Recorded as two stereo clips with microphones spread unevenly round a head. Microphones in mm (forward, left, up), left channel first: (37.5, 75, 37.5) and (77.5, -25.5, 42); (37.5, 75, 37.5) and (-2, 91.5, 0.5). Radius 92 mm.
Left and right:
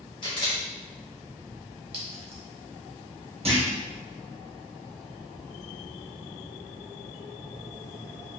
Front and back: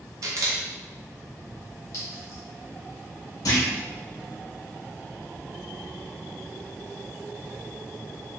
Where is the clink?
40° right, 1.3 m.